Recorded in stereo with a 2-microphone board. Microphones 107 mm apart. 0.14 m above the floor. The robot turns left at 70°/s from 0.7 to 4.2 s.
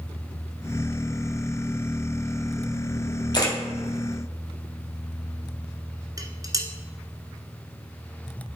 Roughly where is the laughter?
I don't hear laughter.